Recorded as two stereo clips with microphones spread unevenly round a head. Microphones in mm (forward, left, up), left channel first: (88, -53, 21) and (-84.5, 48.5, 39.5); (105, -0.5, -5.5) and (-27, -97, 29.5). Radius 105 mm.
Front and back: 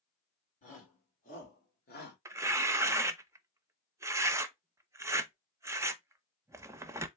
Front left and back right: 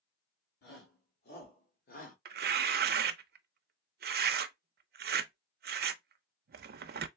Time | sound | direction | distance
0.6 | a shout | 25° left | 3 m
2.2 | tearing paper | 135° right | 0.5 m